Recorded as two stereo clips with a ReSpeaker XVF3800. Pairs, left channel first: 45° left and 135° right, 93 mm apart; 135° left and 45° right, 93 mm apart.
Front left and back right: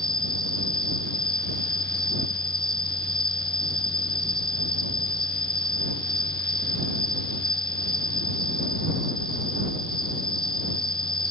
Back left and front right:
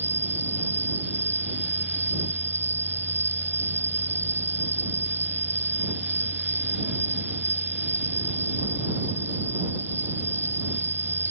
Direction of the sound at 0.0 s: 20° left.